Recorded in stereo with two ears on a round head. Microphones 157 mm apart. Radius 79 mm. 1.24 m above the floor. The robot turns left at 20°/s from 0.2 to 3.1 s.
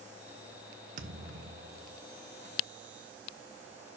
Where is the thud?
50° right (ahead or behind), 1.0 m; by 2.0 s 35° right (ahead or behind), 1.0 m.